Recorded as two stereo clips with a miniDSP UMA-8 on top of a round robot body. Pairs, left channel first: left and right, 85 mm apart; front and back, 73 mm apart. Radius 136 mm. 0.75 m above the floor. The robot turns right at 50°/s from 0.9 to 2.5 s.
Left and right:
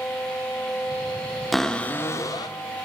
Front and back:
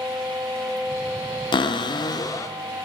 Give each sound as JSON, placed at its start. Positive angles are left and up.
{"t": 1.5, "sound": "a cupboard door", "azimuth_deg": 0, "distance_m": 0.5}